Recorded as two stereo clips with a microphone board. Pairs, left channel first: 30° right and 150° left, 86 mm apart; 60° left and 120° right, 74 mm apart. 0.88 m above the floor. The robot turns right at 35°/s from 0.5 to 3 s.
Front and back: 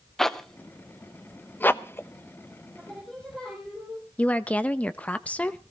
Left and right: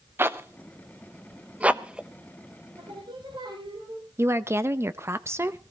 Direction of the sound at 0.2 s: 110° right.